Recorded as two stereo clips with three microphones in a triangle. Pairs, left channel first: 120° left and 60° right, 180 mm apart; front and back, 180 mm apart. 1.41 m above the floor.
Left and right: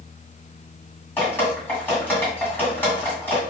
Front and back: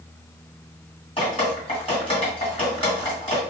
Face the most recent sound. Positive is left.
turn(degrees=45)